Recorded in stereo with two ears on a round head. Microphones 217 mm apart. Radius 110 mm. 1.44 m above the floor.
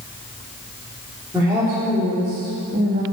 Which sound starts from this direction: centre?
A woman speaking, at 1.3 s.